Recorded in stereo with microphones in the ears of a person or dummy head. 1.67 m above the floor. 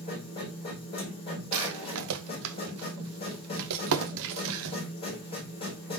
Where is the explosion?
I don't hear an explosion.